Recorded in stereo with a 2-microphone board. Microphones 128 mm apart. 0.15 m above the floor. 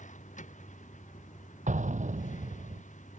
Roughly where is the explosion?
Right.